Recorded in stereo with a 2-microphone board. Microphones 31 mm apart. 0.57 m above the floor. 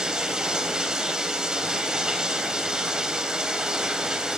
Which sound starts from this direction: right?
Running water, at 0.0 s.